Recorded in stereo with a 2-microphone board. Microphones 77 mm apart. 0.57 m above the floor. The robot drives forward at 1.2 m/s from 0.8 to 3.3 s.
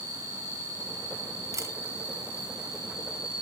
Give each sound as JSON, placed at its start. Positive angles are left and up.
{"t": 0.0, "sound": "an insect", "side_deg": 30, "distance_m": 5.0}
{"t": 1.5, "sound": "a camera shutter", "side_deg": -45, "distance_m": 1.4}